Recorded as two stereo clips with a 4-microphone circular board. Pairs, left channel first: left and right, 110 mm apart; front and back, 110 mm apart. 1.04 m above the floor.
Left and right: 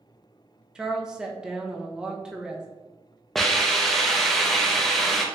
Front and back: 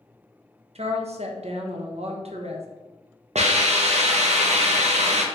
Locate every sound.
0.8 s a woman speaking: 170° right, 0.6 m
3.4 s a hiss: straight behind, 0.6 m